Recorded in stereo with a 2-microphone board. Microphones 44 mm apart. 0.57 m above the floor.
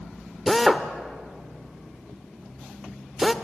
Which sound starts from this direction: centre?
A drill, at 0.5 s.